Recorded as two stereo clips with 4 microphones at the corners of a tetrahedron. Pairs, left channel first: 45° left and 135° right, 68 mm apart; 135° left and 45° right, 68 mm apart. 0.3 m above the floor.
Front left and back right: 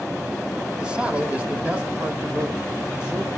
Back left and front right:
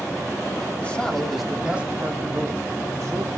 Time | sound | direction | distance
0.8 | a man speaking | 165° left | 1.1 m